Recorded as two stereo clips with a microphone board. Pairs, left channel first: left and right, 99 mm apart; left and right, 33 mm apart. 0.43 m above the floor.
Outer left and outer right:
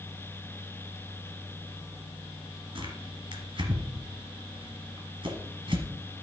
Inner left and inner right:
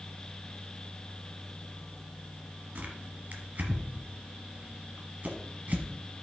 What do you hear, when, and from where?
2.8 s tearing paper: 55° right (ahead or behind), 2 m